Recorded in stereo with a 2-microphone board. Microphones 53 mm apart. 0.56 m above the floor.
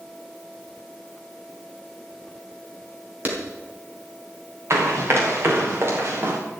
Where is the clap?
30° right (ahead or behind), 3.5 m.